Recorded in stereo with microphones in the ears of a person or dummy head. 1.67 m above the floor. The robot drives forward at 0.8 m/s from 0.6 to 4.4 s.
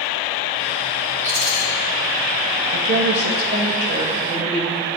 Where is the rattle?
65° right (ahead or behind), 0.8 m; by 1.6 s 50° right (ahead or behind), 0.9 m.